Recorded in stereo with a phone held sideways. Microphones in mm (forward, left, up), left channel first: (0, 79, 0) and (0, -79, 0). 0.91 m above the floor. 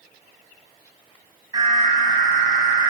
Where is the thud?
I don't hear a thud.